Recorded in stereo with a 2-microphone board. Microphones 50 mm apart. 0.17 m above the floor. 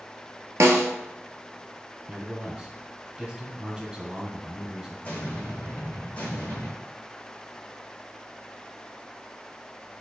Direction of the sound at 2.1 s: 20° right (ahead or behind).